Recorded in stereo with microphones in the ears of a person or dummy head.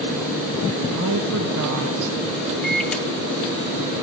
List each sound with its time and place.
0.9 s a woman speaking: 65° right (ahead or behind), 0.8 m; by 2.2 s 85° right, 1.5 m
2.6 s a microwave: centre (ahead or behind), 0.7 m